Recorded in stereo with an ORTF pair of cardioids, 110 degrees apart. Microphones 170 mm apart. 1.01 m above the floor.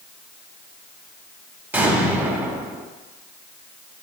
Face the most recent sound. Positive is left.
turn(degrees=-10)